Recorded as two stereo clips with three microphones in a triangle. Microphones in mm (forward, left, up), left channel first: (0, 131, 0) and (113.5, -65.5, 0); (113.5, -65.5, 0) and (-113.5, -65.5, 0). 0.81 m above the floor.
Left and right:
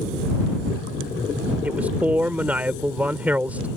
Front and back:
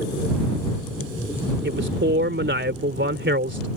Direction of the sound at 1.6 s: 145° right.